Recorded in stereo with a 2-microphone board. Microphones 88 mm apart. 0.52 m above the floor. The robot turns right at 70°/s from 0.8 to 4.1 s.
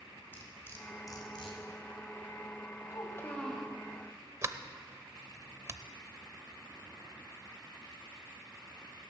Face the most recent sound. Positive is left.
turn(degrees=-35)  # may be behind; listen again after turning